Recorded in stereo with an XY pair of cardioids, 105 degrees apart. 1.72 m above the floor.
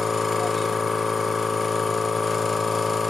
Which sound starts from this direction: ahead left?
A machine running, at 0.0 s.